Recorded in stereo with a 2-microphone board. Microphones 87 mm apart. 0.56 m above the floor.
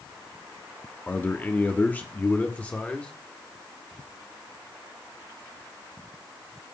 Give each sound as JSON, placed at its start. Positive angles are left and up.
{"t": 1.1, "sound": "a man speaking", "side_deg": 20, "distance_m": 1.0}